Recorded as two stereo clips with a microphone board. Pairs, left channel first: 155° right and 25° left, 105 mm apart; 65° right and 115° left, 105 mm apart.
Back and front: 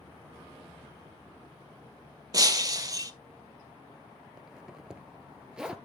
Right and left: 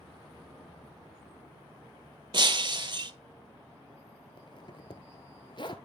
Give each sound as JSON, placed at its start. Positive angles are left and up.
{"t": 2.3, "sound": "breaking glass", "azimuth_deg": 75, "distance_m": 0.7}
{"t": 4.4, "sound": "a zipper", "azimuth_deg": -60, "distance_m": 1.0}